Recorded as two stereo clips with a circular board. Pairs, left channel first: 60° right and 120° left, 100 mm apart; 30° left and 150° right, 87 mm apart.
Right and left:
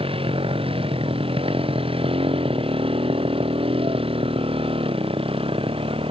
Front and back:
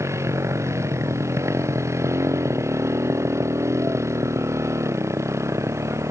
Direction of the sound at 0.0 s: 150° left.